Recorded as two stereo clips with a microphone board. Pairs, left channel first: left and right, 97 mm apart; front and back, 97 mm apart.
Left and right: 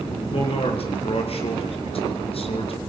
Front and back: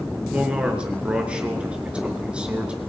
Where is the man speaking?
100° left, 5 m.